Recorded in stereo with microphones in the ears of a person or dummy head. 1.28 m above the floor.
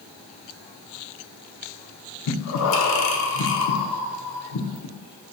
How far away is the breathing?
About 0.6 m.